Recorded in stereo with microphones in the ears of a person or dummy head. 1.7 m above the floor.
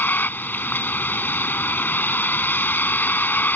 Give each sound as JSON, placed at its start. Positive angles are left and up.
{"t": 0.0, "sound": "a vehicle", "side_deg": 15}